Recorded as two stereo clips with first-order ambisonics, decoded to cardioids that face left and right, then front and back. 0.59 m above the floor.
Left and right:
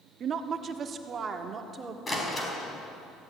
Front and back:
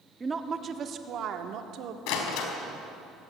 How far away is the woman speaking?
About 1.2 m.